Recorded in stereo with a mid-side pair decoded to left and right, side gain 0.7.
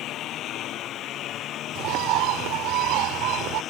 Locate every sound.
0.0 s a lawn mower: 50° left; by 3.7 s 45° left
1.8 s a bird: 65° right